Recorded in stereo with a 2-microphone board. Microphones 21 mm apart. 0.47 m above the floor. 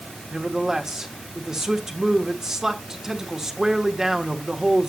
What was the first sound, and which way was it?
A man speaking, 30° right (ahead or behind).